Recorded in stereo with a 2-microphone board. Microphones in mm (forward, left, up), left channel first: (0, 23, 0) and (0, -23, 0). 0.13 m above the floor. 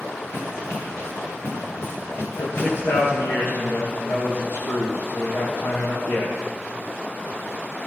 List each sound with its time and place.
0.3 s running footsteps: 65° left (ahead or behind), 8 m; by 3.1 s 70° left (ahead or behind), 10 m
2.3 s a man speaking: 70° left (ahead or behind), 8.5 m